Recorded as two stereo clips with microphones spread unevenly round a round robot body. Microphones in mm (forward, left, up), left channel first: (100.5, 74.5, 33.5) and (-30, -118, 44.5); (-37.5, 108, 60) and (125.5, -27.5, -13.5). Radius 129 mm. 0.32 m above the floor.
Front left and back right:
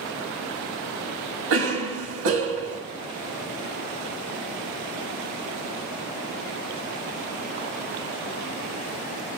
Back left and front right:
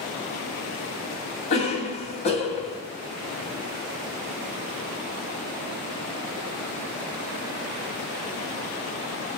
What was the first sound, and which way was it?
A cough, 150° right.